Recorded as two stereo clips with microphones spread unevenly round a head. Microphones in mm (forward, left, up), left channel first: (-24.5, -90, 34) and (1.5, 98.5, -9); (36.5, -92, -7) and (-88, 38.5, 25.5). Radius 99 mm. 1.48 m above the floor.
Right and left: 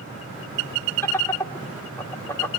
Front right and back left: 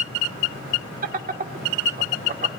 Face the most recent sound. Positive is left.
turn(degrees=180)